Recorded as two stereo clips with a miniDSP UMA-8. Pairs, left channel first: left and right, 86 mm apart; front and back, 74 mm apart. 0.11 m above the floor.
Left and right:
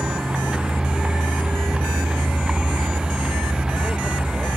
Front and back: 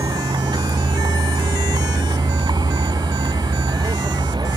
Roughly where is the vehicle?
Behind.